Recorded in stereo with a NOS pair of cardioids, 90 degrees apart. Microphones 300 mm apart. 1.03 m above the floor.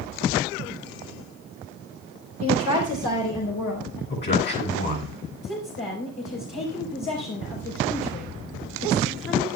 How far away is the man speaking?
About 8 m.